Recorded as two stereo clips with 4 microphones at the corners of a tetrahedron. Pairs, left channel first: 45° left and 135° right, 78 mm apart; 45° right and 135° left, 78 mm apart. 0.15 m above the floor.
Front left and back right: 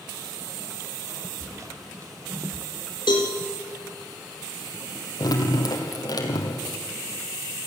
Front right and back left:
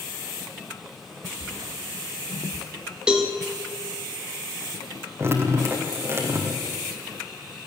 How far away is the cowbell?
About 3 m.